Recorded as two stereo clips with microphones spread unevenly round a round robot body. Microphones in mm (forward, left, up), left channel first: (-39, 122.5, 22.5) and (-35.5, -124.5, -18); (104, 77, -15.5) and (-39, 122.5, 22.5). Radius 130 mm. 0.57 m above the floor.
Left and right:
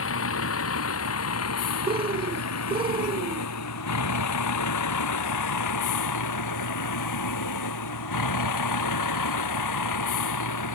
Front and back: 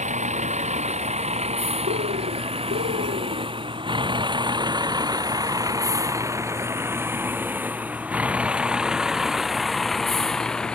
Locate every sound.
0.0 s a vehicle: 125° left; by 10.8 s 65° left
1.9 s a bird: 160° right